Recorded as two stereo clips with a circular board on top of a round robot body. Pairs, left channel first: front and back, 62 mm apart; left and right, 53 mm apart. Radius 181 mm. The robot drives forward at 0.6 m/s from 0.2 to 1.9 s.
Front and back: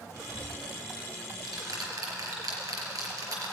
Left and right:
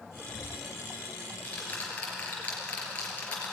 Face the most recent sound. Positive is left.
turn(degrees=155)